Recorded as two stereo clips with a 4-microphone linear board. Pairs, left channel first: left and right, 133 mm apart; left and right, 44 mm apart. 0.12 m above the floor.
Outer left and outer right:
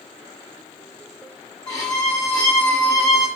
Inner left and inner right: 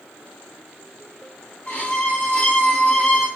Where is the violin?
30° left (ahead or behind), 2.0 m.